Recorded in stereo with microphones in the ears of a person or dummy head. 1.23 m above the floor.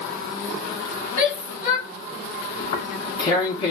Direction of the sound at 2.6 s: 30° left (ahead or behind).